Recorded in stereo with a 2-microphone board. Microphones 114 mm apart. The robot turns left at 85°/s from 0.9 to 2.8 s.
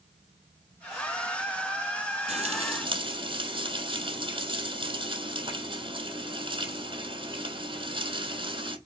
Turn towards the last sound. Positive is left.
turn(degrees=-120)